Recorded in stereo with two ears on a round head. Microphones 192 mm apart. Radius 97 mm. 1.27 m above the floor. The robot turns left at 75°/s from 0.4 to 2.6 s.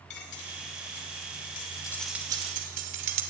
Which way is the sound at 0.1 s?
55° left (ahead or behind).